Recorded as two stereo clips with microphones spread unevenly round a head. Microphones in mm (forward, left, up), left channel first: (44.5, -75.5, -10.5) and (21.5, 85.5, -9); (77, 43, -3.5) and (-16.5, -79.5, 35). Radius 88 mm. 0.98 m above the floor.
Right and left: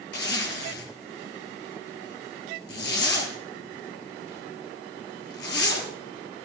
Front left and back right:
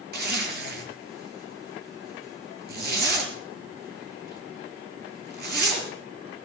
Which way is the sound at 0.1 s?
115° right.